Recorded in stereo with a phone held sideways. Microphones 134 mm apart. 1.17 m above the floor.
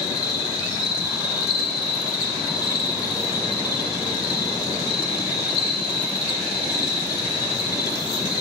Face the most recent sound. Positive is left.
turn(degrees=30)  # may be behind; listen again after turning